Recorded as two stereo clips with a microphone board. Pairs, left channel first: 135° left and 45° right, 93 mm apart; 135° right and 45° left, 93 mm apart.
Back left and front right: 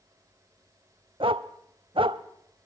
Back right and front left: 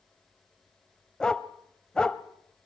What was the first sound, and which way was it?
A dog barking, 55° right.